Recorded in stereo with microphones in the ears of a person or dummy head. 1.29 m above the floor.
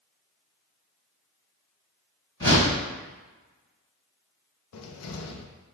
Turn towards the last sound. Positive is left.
turn(degrees=85)